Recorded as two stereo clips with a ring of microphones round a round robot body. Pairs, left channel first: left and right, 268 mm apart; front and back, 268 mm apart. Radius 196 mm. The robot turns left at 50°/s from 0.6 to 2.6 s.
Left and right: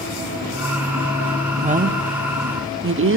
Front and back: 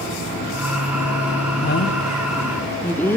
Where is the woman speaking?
30° right, 1.5 m; by 3.2 s 80° right, 1.5 m.